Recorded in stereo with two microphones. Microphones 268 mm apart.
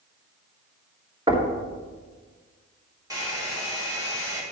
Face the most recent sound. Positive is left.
turn(degrees=-15)  # may be behind; listen again after turning